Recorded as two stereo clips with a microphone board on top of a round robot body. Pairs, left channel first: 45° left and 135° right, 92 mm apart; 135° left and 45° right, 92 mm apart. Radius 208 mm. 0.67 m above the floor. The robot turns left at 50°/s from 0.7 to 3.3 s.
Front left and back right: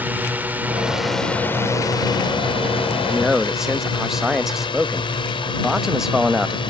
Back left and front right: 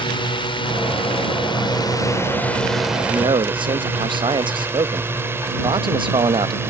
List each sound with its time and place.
0.0 s a drone: 155° left; by 6.7 s 20° left
3.1 s a man speaking: 40° right; by 6.7 s 50° right